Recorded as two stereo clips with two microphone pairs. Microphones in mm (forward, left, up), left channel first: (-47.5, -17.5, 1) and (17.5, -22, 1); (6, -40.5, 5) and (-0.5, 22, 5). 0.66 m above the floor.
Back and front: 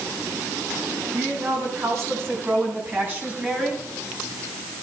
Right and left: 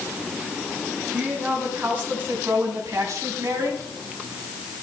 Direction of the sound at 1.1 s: 30° left.